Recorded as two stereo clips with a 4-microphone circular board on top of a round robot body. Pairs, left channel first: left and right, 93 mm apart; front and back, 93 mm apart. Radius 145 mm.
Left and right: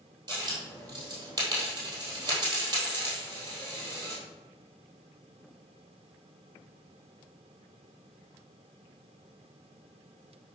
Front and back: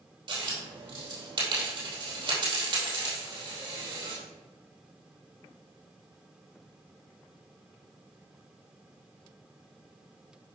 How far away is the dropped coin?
About 3 m.